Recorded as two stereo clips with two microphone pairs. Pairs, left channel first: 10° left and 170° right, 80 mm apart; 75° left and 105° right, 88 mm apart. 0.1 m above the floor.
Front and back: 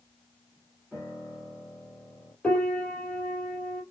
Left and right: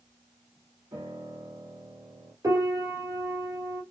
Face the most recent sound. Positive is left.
turn(degrees=-65)